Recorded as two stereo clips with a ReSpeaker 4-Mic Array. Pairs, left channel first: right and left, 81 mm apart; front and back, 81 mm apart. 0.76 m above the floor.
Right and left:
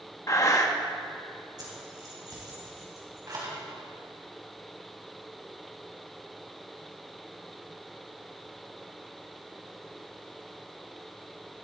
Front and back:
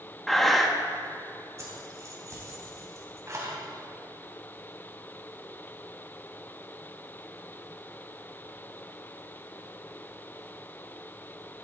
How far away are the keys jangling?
About 4 m.